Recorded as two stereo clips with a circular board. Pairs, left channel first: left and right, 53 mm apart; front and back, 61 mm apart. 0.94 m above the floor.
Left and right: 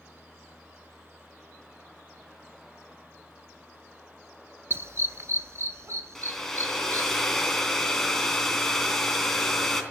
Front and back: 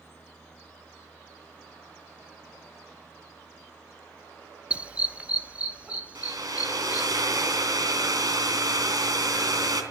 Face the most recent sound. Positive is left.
turn(degrees=175)